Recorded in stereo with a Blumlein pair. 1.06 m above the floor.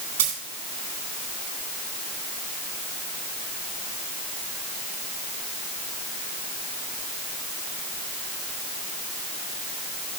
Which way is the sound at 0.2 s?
55° right.